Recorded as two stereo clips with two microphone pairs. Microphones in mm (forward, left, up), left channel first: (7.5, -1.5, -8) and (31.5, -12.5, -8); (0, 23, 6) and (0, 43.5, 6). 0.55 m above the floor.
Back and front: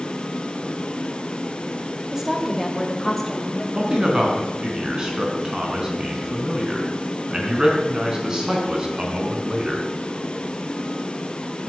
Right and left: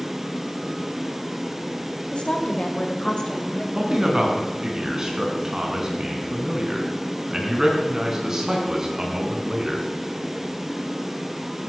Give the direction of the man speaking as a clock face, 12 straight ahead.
11 o'clock.